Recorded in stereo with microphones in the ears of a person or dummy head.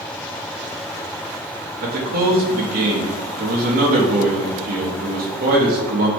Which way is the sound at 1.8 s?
45° right (ahead or behind).